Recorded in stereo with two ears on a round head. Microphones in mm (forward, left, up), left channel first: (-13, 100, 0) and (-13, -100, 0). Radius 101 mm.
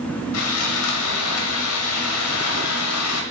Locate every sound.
0.3 s sawing: 75° left (ahead or behind), 0.8 m